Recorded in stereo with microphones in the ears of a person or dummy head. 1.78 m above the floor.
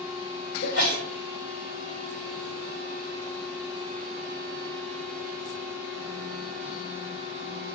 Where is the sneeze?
55° left (ahead or behind), 1.8 m.